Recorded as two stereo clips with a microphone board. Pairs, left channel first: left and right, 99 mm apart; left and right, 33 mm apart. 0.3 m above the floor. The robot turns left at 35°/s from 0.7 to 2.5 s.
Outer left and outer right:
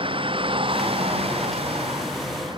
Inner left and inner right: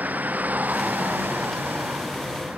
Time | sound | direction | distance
0.0 | a vehicle | 65° right (ahead or behind) | ?